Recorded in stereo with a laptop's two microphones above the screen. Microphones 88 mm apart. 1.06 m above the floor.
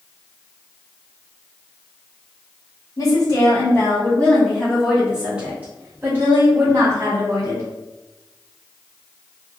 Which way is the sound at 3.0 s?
45° left (ahead or behind).